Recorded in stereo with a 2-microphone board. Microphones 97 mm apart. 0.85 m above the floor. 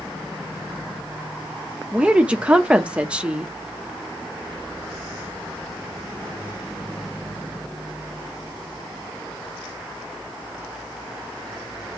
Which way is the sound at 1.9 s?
10° right (ahead or behind).